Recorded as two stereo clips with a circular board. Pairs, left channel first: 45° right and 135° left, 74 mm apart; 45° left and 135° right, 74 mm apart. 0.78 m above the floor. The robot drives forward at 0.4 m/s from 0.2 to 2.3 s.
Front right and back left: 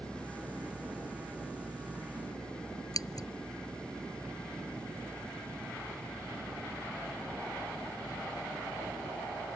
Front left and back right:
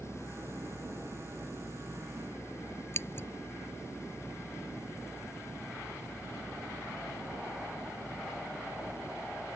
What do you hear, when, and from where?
2.9 s scissors: 10° right